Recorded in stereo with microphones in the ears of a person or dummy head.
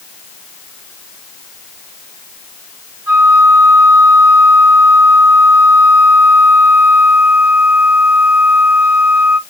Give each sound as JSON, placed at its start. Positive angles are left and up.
{"t": 3.1, "sound": "a flute", "side_deg": -10, "distance_m": 1.8}